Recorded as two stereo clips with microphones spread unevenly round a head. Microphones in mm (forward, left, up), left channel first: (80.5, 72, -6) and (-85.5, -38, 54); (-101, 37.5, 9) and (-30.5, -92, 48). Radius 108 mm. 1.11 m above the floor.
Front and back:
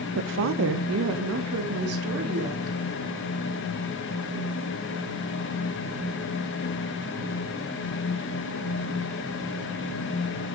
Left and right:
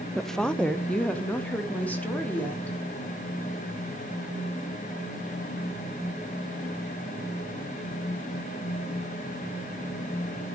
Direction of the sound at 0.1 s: 175° right.